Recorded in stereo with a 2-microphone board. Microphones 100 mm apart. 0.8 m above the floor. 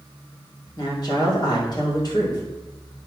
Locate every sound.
0.8 s a woman speaking: 45° left (ahead or behind), 3 m